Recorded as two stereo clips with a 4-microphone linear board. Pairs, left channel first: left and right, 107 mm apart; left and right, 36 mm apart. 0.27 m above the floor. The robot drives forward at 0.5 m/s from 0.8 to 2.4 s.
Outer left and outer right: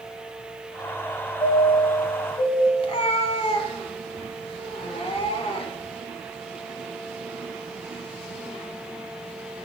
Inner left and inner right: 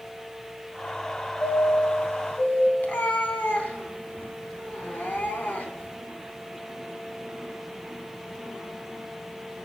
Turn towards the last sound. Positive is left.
turn(degrees=60)  # may be behind; listen again after turning